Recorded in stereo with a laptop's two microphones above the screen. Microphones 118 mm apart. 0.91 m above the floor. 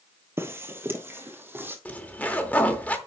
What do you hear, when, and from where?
0.4 s footsteps: 20° right (ahead or behind), 1.5 m; by 1.8 s 15° right (ahead or behind), 2 m
1.9 s a zipper: 15° left (ahead or behind), 0.8 m